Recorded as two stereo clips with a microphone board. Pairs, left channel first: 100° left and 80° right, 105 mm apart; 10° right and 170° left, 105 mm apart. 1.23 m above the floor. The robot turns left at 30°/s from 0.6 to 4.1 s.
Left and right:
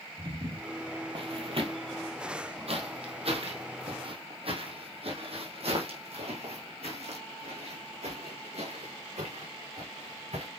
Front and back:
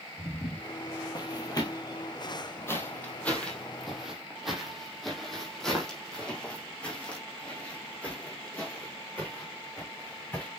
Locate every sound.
0.2 s footsteps: 50° right, 2.5 m; by 10.5 s 80° right, 6.5 m